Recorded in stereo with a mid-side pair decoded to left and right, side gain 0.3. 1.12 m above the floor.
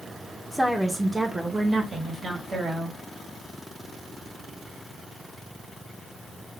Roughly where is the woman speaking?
Ahead.